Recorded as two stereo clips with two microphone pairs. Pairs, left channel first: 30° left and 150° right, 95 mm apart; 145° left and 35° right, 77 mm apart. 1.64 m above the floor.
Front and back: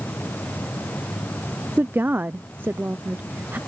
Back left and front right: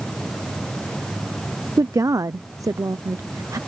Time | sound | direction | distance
1.8 | a woman speaking | 80° right | ?